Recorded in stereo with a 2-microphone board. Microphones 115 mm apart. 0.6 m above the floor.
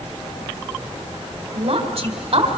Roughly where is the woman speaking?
Right.